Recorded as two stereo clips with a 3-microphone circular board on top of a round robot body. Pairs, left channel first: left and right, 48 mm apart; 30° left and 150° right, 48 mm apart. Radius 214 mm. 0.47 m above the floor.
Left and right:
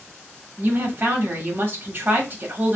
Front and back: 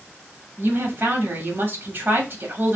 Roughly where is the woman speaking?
Behind right.